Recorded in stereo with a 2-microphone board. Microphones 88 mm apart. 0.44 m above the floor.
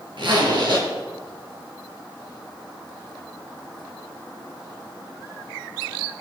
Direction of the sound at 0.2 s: 65° right (ahead or behind).